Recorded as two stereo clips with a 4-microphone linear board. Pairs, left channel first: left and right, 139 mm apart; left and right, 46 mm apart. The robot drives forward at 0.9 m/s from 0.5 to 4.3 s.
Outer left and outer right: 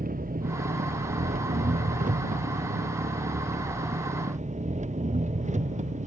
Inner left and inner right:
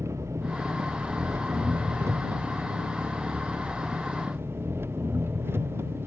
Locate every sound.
0.0 s an engine running: 85° right; by 6.1 s 55° right (ahead or behind)